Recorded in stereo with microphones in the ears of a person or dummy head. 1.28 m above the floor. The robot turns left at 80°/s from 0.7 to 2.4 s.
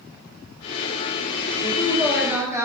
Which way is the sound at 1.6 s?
45° left.